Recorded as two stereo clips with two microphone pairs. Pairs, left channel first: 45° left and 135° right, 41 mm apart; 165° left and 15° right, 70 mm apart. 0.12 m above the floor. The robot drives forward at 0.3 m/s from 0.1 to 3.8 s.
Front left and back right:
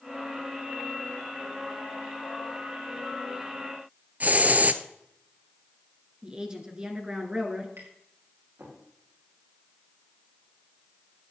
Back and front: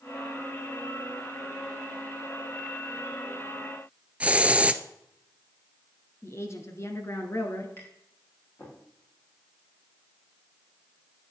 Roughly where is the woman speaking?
Behind.